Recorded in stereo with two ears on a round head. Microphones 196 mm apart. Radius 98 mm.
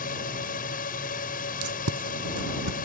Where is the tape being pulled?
75° right (ahead or behind).